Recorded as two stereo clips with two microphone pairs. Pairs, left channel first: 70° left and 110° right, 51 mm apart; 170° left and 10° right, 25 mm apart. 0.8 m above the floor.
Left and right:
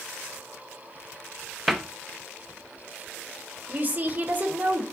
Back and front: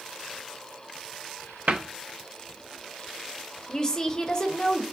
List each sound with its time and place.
1.7 s a cupboard door: 15° right, 0.5 m
3.7 s a woman speaking: 150° right, 0.7 m